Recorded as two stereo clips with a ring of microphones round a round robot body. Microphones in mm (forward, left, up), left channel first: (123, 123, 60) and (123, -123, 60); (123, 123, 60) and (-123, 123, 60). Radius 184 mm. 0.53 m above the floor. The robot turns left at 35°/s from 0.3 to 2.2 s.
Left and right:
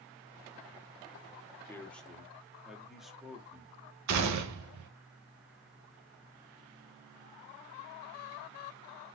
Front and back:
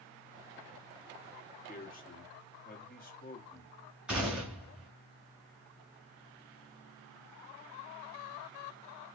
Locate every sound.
1.7 s a man speaking: 15° left, 1.1 m; by 3.8 s straight ahead, 1.1 m
4.1 s a gunshot: 95° right, 0.6 m